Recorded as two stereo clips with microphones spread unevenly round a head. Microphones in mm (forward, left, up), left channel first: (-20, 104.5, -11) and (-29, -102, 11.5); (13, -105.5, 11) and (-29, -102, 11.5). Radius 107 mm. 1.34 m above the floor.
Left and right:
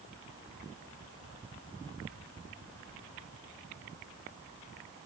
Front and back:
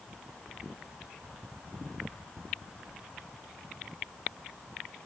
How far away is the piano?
I don't hear a piano.